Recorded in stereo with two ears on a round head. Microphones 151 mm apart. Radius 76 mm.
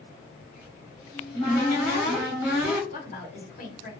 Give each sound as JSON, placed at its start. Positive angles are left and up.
{"t": 0.4, "sound": "a cupboard door", "side_deg": 65, "distance_m": 1.4}
{"t": 2.9, "sound": "a woman speaking", "side_deg": 50, "distance_m": 1.0}